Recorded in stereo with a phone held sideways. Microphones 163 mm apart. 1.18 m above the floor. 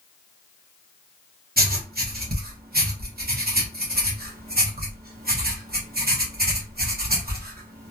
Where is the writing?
75° right (ahead or behind), 0.9 m.